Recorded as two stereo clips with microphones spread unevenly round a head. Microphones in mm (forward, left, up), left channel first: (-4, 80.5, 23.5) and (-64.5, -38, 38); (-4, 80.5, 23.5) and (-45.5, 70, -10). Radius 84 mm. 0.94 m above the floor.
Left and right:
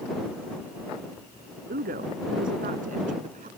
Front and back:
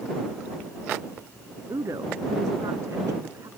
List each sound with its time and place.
1.7 s a woman speaking: 135° right; by 3.5 s 145° right